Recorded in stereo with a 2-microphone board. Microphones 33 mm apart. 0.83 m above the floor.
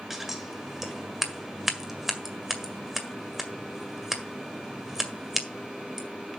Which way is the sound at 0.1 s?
15° right (ahead or behind).